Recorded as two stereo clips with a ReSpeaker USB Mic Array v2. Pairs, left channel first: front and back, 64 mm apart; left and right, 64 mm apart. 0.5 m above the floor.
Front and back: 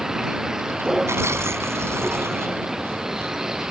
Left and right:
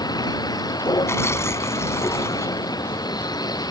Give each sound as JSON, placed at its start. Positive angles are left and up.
{"t": 0.0, "sound": "a vehicle", "azimuth_deg": 95}
{"t": 1.1, "sound": "tearing paper", "azimuth_deg": 135}